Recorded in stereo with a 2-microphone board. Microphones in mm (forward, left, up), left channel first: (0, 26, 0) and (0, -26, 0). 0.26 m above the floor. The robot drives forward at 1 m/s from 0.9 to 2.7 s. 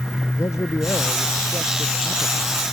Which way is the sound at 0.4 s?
75° left (ahead or behind).